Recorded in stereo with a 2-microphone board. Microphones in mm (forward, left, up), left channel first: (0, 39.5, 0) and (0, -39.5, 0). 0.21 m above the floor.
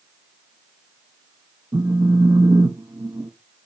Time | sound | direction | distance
1.7 | a phone buzzing | 50° right (ahead or behind) | 0.7 m